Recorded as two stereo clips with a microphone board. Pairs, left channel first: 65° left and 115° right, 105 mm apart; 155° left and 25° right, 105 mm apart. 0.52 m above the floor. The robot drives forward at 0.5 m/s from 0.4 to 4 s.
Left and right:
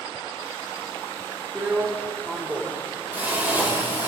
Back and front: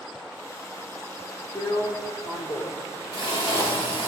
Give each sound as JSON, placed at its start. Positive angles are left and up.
{"t": 1.6, "sound": "a drill", "azimuth_deg": 175, "distance_m": 1.1}